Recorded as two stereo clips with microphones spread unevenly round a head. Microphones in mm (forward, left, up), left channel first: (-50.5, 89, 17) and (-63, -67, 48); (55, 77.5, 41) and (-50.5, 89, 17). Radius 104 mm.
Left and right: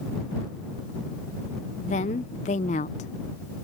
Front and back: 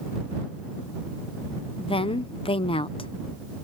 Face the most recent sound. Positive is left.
turn(degrees=30)